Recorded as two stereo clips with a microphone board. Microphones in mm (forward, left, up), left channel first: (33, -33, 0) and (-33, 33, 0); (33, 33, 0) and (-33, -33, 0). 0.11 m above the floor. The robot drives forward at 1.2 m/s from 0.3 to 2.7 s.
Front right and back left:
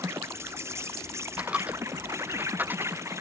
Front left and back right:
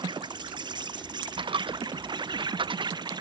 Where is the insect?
165° right; by 3.2 s 170° right.